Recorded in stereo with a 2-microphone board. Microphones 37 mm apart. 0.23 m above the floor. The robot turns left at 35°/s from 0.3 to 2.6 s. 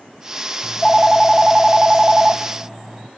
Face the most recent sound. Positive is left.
turn(degrees=-40)